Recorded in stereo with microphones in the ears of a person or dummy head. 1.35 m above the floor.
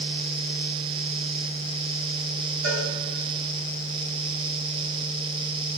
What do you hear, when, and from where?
2.6 s a cowbell: 65° right (ahead or behind), 3.5 m